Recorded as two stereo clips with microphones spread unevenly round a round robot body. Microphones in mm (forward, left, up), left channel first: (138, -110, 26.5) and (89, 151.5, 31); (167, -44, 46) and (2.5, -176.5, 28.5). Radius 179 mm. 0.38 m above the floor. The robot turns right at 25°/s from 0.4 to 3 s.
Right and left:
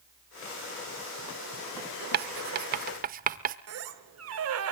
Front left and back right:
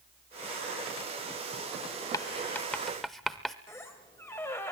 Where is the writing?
115° left, 0.5 m; by 3.6 s 135° left, 0.5 m.